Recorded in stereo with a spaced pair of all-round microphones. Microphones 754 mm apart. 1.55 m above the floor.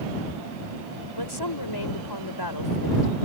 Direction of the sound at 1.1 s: 30° left (ahead or behind).